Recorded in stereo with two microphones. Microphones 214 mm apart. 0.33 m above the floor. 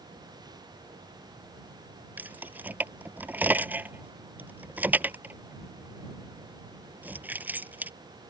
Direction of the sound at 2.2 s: 10° right (ahead or behind).